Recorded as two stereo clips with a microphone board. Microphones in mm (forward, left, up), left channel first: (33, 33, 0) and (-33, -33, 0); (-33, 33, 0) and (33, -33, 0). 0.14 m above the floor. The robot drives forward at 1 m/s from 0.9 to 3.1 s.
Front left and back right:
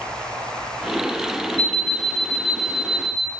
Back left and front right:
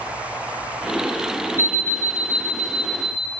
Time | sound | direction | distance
1.6 | an alarm clock | 105° right | 2.5 m